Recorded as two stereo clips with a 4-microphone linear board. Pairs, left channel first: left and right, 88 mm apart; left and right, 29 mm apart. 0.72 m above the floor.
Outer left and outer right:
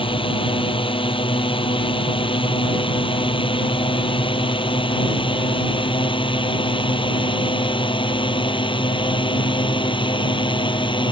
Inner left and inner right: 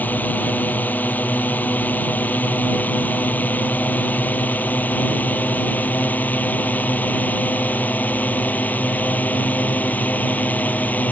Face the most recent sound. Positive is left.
turn(degrees=70)  # may be behind; listen again after turning